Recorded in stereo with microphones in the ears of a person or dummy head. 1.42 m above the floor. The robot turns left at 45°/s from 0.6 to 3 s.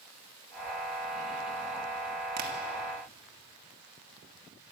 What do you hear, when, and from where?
2.4 s tapping: 55° right (ahead or behind), 2 m; by 2.5 s 45° right (ahead or behind), 2 m